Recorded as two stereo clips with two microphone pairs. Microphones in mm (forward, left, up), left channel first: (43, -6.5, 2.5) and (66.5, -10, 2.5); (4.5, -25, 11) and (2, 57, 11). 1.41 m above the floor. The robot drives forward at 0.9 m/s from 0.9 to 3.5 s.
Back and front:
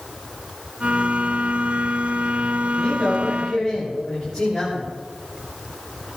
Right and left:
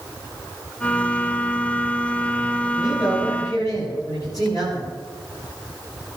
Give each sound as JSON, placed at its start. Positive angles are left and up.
{"t": 2.7, "sound": "a man speaking", "azimuth_deg": -130, "distance_m": 8.0}